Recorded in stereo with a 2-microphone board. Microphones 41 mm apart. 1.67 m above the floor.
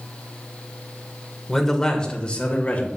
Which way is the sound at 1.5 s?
5° left (ahead or behind).